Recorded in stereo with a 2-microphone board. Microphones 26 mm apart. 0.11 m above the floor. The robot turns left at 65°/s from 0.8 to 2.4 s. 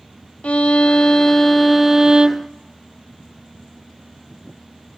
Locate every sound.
0.4 s a violin: 55° left, 0.5 m; by 2.5 s 50° right, 0.5 m